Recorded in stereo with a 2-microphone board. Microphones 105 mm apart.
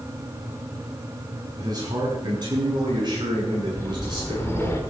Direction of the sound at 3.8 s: 25° left (ahead or behind).